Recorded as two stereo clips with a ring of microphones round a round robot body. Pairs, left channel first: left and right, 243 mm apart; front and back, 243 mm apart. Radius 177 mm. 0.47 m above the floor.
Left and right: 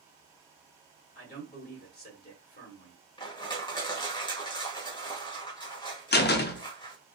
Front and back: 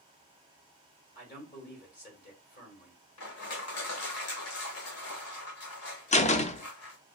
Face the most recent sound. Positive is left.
turn(degrees=55)